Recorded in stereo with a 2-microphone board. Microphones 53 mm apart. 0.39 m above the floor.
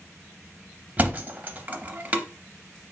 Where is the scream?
I don't hear a scream.